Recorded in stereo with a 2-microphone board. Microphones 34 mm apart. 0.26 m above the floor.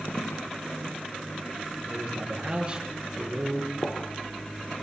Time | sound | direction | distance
0.1 | footsteps | 85° left | 2.5 m
1.9 | a man speaking | 30° right (ahead or behind) | 5 m
3.8 | a gunshot | 80° left | 2.5 m